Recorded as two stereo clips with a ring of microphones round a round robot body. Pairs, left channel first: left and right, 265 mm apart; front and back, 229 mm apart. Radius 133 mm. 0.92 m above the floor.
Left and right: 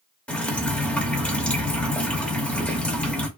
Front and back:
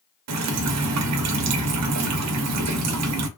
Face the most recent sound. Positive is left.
turn(degrees=175)